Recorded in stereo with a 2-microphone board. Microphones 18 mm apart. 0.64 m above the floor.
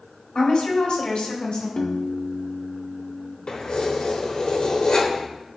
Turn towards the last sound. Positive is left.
turn(degrees=70)  # may be behind; listen again after turning